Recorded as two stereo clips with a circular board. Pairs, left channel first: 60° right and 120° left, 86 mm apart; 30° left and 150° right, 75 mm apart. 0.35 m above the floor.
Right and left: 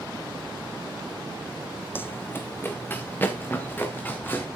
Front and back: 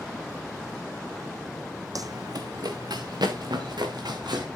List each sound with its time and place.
1.9 s running footsteps: 120° right, 0.7 m; by 4.5 s 125° right, 3 m